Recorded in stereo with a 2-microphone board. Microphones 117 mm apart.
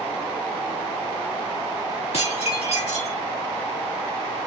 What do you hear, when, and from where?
2.1 s dishes clattering: 65° left (ahead or behind), 3 m